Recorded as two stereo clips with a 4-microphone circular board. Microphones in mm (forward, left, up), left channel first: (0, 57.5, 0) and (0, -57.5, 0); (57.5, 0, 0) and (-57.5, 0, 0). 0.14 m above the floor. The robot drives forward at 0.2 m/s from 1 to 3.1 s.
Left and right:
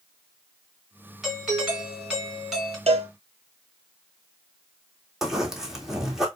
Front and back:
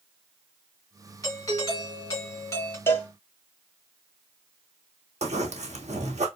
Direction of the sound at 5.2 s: 175° right.